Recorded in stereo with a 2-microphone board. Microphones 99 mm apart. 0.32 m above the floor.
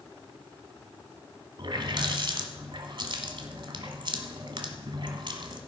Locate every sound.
1.6 s a running tap: 55° right (ahead or behind), 1.4 m